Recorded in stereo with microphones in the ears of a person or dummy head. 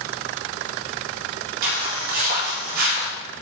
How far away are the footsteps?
About 3 m.